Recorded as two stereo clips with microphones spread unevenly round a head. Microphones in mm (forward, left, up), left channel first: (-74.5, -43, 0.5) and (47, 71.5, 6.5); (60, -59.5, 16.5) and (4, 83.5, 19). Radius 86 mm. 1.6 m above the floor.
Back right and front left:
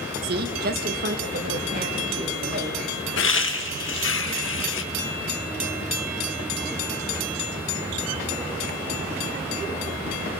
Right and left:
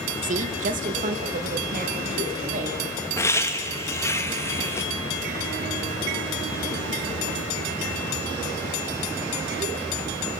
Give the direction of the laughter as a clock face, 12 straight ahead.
5 o'clock.